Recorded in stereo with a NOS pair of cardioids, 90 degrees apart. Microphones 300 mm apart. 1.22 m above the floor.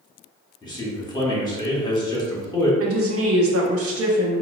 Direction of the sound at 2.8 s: 50° right.